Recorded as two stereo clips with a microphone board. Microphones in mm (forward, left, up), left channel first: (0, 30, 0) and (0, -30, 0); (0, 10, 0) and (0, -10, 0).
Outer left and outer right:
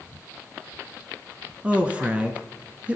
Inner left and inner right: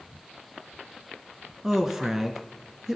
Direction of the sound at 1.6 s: 20° right (ahead or behind).